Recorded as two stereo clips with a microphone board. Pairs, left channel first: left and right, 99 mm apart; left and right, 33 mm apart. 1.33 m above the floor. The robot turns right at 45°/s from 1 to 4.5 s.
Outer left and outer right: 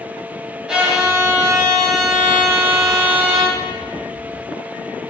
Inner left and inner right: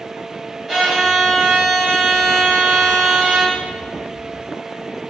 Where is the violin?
175° right, 0.9 m; by 3.6 s 60° right, 0.9 m.